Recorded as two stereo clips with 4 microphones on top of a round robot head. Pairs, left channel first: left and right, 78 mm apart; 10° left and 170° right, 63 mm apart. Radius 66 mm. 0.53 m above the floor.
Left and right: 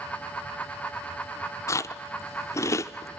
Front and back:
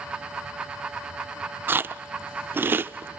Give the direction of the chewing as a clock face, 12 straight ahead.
7 o'clock.